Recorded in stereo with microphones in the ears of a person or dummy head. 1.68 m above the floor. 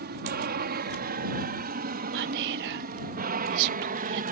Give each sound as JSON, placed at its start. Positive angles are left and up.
{"t": 0.0, "sound": "an aircraft", "side_deg": -45}
{"t": 2.1, "sound": "whispering", "side_deg": -50}